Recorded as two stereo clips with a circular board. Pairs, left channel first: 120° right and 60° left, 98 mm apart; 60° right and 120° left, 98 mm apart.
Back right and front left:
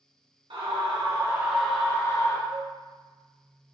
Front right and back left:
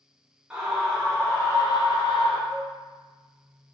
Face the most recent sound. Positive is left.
turn(degrees=20)